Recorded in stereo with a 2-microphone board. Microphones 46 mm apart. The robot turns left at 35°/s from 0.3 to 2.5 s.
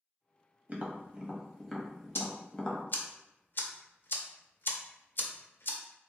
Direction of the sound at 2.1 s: 60° left (ahead or behind).